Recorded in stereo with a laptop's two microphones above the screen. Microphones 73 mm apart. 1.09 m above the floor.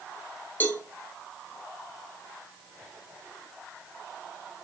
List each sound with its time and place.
0.6 s a cowbell: 25° left (ahead or behind), 0.6 m